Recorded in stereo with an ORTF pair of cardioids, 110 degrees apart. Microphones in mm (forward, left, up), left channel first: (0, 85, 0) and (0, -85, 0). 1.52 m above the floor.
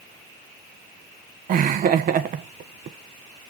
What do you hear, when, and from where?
1.5 s laughter: 55° right, 1.4 m